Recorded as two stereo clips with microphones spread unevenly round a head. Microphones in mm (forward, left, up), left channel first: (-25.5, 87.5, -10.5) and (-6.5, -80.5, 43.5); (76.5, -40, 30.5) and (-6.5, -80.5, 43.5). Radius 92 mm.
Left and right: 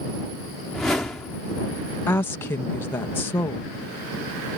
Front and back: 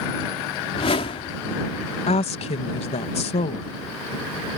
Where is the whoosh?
Straight ahead.